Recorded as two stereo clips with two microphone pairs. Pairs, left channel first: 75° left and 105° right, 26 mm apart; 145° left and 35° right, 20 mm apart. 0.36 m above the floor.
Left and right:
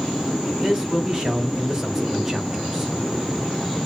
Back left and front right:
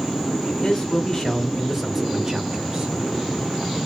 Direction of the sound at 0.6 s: 170° right.